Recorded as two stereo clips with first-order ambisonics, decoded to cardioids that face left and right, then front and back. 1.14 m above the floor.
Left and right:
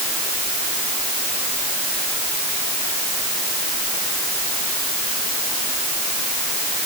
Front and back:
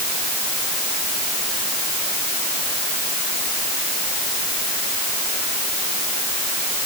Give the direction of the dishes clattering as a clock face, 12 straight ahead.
No dishes clattering in this recording.